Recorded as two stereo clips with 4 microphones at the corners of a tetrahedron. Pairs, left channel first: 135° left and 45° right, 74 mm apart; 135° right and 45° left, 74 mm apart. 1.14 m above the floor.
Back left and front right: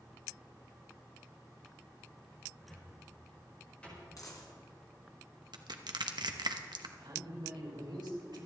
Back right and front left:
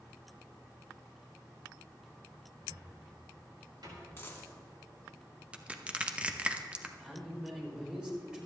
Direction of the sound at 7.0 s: 35° right.